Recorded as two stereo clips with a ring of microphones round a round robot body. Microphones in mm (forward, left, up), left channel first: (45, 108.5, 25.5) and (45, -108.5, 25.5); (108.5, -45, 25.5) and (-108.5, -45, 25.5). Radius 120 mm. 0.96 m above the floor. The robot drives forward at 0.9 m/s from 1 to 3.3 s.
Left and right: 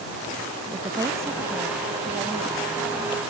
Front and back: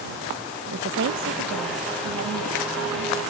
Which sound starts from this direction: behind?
A woman speaking, at 0.7 s.